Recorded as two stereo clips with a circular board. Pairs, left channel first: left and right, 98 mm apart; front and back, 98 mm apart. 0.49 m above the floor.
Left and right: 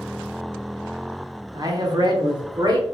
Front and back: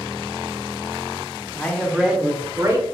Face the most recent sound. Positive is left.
turn(degrees=-125)